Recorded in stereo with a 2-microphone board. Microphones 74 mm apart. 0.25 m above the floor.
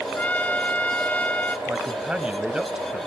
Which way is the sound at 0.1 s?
20° left (ahead or behind).